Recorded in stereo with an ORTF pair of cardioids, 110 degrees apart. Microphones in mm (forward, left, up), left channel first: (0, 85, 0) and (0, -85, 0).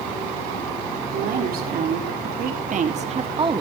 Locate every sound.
1.1 s a woman speaking: 65° right, 4.5 m; by 3.6 s 25° right, 1.9 m